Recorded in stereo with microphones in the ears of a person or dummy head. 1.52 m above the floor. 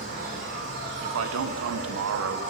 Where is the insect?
45° right (ahead or behind), 1.5 m.